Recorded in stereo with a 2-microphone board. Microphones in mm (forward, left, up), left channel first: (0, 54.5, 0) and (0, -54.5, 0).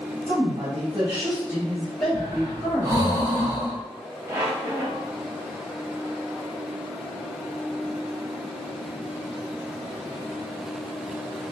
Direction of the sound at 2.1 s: 30° right (ahead or behind).